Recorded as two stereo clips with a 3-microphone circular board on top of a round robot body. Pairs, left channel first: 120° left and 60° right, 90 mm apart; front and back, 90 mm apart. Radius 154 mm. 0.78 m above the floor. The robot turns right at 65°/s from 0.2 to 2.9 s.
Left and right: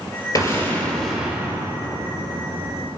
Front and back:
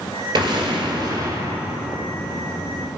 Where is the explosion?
165° left, 2 m; by 2.9 s 30° right, 2 m.